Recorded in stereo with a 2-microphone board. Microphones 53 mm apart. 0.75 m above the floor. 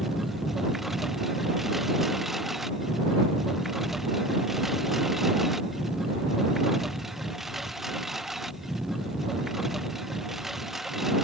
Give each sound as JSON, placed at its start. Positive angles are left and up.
{"t": 0.0, "sound": "a lawn mower", "side_deg": -5}